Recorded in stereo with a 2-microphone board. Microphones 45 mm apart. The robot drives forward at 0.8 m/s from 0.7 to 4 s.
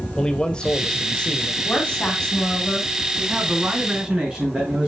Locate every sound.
0.2 s a man speaking: 20° left (ahead or behind), 1.2 m
1.6 s a woman speaking: 30° left (ahead or behind), 2.5 m; by 2.9 s 20° left (ahead or behind), 3 m
3.2 s a man speaking: 25° right (ahead or behind), 3.5 m; by 4.9 s 20° right (ahead or behind), 4 m